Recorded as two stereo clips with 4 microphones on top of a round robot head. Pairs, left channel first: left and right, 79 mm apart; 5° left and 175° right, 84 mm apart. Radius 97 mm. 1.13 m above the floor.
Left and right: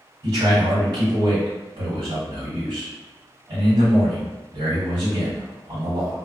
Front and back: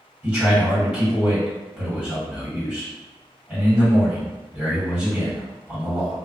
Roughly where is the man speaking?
Right.